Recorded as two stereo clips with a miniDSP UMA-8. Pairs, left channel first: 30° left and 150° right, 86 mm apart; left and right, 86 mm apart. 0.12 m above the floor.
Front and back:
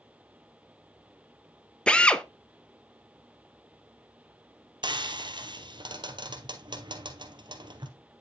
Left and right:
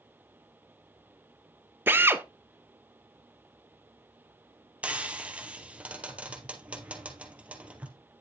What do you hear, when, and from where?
1.9 s a drill: 40° right, 0.7 m
4.8 s frying: 165° right, 1.9 m